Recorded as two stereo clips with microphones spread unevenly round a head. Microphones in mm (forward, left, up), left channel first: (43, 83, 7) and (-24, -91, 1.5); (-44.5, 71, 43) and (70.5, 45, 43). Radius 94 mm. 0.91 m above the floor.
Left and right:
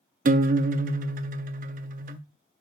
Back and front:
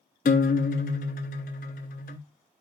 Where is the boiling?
I don't hear boiling.